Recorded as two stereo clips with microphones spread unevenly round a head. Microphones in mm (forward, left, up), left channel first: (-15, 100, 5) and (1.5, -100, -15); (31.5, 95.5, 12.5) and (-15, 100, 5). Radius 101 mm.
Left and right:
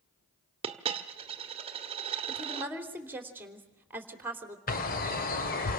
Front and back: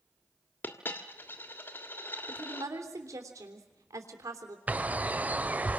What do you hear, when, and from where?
0.6 s a dropped coin: 25° right, 1.5 m
2.3 s a woman speaking: 165° right, 3.5 m
4.7 s a bird: 120° left, 1.7 m